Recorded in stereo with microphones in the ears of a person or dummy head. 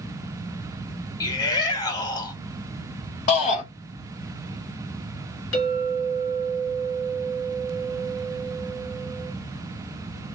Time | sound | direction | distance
1.2 | a shout | 25° left (ahead or behind) | 1.0 m
3.3 | a shout | 40° left (ahead or behind) | 1.1 m
5.5 | a clink | 60° left (ahead or behind) | 1.3 m